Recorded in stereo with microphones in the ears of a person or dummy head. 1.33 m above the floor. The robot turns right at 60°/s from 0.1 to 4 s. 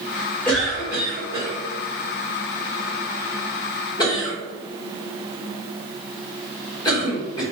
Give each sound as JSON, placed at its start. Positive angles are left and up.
{"t": 0.5, "sound": "a cough", "side_deg": 10, "distance_m": 1.4}